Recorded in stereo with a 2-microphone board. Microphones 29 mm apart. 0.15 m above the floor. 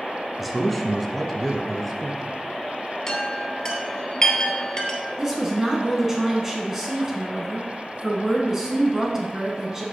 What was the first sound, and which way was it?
A man speaking, centre (ahead or behind).